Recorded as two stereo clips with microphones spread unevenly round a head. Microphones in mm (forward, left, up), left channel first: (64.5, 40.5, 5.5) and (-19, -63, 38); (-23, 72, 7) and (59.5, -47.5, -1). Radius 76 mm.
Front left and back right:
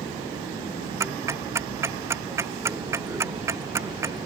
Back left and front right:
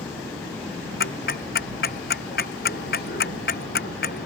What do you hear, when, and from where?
1.0 s ticking: 160° left